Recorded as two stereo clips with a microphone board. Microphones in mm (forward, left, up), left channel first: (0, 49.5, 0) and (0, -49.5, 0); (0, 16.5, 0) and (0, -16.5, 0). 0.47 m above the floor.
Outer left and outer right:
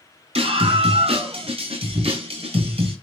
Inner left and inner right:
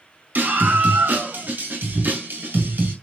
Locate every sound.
0.3 s a scream: 75° right (ahead or behind), 5.5 m